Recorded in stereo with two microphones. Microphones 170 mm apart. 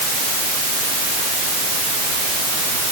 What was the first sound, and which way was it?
Only background noise.